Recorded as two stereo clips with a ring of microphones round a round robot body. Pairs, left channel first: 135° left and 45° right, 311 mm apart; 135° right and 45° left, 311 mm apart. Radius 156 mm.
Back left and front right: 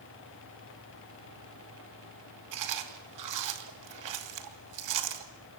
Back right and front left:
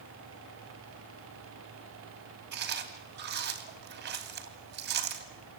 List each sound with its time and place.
2.5 s chewing: 15° right, 3 m